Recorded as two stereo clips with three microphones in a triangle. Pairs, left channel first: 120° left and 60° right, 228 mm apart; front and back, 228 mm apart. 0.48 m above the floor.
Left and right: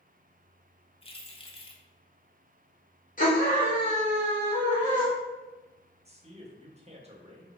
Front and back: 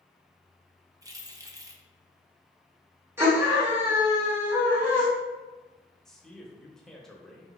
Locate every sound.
1.0 s keys jangling: 125° left, 0.6 m
3.2 s a scream: 105° left, 1.5 m
6.0 s a man speaking: 85° right, 0.8 m